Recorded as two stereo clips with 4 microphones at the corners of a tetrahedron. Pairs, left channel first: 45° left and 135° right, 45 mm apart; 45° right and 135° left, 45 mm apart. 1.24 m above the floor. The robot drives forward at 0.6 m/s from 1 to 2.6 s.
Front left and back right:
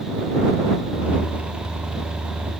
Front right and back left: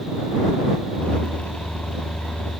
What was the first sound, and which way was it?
Only background noise.